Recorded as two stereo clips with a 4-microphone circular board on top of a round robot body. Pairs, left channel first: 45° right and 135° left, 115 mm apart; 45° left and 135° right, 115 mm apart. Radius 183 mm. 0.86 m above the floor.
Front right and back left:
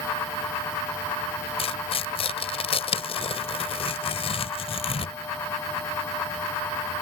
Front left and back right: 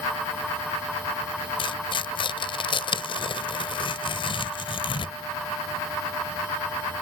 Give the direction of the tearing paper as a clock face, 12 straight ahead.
12 o'clock.